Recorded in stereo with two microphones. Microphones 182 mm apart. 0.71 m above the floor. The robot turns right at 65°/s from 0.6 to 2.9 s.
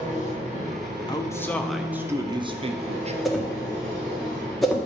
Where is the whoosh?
Centre (ahead or behind), 1.3 m.